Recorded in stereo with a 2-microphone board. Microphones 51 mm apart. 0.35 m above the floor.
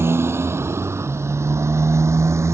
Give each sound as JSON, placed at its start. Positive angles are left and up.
{"t": 0.0, "sound": "a motorcycle", "side_deg": -55}